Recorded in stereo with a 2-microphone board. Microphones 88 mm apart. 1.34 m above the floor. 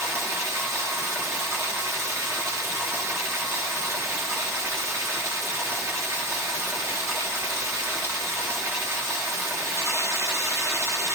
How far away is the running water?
About 2 m.